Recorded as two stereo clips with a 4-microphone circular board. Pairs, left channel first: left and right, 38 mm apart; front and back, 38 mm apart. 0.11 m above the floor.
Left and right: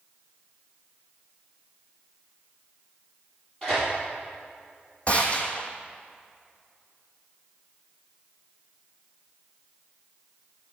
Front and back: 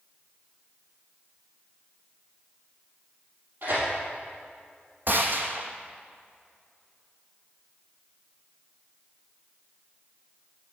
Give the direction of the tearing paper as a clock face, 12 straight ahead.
7 o'clock.